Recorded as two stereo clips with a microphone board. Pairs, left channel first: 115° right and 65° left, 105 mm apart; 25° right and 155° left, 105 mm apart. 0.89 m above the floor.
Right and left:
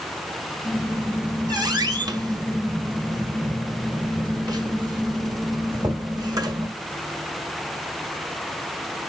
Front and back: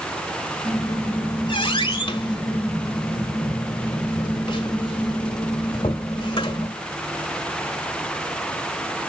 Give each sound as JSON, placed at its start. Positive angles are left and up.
{"t": 0.6, "sound": "a squeak", "azimuth_deg": 15, "distance_m": 1.4}